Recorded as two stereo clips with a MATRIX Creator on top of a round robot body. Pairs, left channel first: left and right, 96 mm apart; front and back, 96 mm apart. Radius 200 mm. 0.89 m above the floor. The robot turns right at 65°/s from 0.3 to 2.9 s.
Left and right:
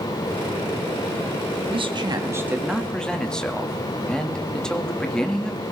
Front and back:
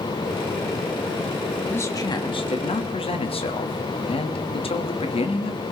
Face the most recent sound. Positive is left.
turn(degrees=10)